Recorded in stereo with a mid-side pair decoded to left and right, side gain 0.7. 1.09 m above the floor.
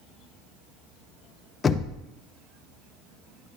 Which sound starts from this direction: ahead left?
Knocking, at 1.6 s.